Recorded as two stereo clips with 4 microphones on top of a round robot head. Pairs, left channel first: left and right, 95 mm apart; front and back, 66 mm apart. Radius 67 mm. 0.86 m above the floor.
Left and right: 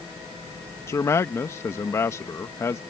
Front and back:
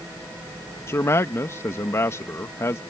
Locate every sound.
0.9 s a man speaking: 35° left